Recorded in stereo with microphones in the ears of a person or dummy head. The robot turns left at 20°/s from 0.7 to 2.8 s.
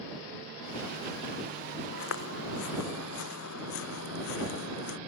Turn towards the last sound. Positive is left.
turn(degrees=70)  # may be behind; listen again after turning